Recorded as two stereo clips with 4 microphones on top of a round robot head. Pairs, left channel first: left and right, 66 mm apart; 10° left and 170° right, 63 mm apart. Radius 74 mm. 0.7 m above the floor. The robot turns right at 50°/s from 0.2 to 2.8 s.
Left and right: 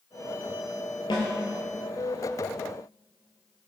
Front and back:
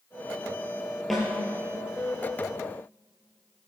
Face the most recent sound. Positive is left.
turn(degrees=180)